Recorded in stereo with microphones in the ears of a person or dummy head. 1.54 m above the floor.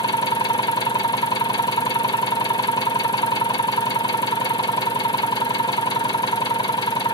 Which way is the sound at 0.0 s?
20° left (ahead or behind).